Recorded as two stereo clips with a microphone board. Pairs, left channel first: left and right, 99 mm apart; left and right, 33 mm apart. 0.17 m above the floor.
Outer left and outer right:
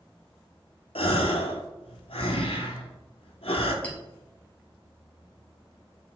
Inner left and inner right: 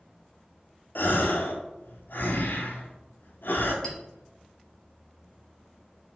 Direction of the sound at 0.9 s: 80° left.